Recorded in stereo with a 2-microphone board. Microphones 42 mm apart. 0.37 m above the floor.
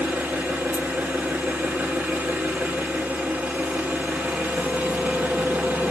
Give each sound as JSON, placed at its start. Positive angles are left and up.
{"t": 0.0, "sound": "an engine running", "side_deg": -45, "distance_m": 0.9}